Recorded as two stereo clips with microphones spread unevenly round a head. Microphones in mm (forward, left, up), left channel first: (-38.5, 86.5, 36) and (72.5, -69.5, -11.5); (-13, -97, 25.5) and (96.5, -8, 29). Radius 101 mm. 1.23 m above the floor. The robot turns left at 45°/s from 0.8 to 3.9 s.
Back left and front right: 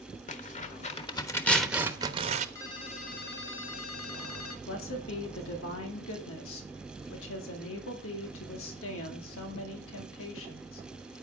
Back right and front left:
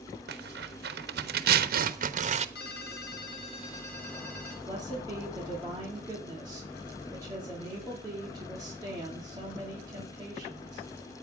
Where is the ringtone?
160° right, 1.3 m; by 4.6 s 140° left, 1.3 m.